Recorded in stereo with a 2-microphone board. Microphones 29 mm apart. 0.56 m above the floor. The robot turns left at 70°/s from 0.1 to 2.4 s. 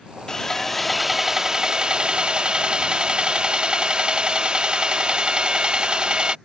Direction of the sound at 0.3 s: 45° left.